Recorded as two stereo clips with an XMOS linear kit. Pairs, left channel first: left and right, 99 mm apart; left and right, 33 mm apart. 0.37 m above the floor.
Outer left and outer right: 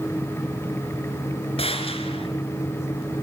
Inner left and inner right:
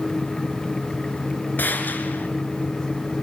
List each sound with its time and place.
1.6 s a gunshot: 80° left, 3 m